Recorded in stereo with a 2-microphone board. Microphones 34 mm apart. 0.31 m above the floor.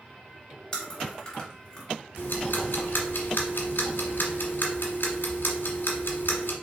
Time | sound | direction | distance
0.7 | chewing | 15° left (ahead or behind) | 1.9 m
2.2 | ticking | 75° left (ahead or behind) | 1.3 m